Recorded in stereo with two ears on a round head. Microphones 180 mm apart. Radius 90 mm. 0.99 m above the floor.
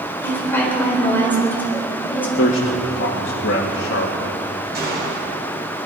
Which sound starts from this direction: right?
A gunshot, at 4.7 s.